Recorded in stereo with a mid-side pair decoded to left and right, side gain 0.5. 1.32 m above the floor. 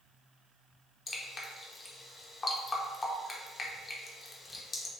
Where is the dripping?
35° left, 0.6 m.